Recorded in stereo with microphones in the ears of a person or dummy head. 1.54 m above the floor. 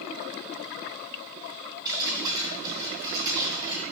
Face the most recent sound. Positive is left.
turn(degrees=-25)  # may be behind; listen again after turning